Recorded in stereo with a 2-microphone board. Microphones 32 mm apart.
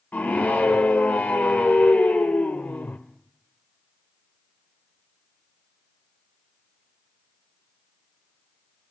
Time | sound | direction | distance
0.1 | a scream | 65° left (ahead or behind) | 1.5 m